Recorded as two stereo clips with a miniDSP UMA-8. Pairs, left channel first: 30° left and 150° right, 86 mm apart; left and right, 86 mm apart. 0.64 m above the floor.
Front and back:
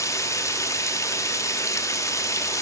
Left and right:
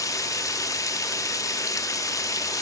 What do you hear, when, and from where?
0.0 s running water: 65° left, 0.8 m